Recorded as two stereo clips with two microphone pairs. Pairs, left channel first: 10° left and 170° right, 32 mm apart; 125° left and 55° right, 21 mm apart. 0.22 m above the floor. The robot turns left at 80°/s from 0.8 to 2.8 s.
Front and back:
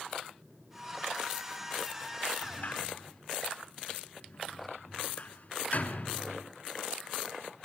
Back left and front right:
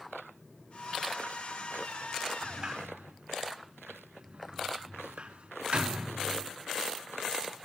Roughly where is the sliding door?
Ahead.